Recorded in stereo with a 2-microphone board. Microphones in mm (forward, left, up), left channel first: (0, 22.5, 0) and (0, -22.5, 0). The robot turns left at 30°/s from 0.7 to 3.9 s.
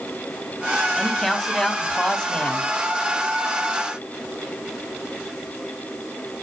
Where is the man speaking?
Centre (ahead or behind), 1.0 m; by 2.7 s 20° left (ahead or behind), 1.0 m.